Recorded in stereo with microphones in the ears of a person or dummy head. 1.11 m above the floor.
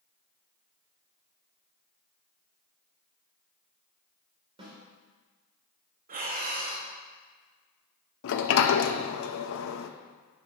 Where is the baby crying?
No baby crying in this recording.